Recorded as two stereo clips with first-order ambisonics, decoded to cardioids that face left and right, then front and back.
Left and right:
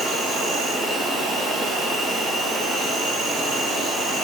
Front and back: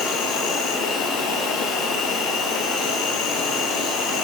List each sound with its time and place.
0.0 s an insect: 20° right, 2 m